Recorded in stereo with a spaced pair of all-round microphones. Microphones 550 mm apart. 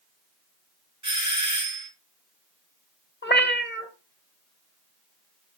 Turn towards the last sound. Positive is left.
turn(degrees=20)  # may be behind; listen again after turning